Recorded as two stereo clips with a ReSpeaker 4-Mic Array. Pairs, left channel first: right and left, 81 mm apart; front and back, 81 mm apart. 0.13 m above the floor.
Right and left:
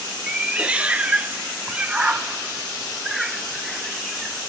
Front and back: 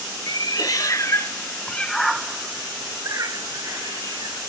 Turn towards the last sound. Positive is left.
turn(degrees=180)